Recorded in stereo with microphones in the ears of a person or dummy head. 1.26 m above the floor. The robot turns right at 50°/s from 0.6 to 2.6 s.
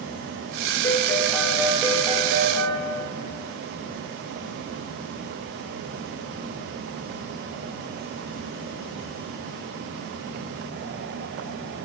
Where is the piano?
150° left, 1.0 m; by 2.8 s 125° right, 1.0 m.